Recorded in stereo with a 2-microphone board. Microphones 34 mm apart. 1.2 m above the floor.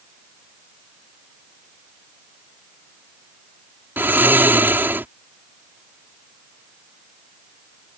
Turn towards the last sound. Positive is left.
turn(degrees=-80)